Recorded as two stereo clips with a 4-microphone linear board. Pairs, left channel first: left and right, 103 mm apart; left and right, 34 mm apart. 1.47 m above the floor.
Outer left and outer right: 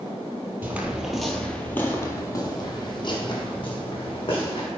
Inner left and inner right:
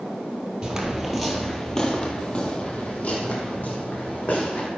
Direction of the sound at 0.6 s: 20° right (ahead or behind).